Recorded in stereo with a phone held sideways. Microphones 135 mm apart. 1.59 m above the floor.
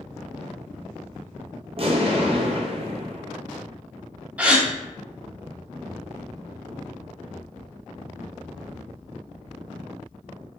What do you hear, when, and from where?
1.8 s an explosion: 45° right (ahead or behind), 0.6 m
4.4 s a gasp: 10° right (ahead or behind), 0.6 m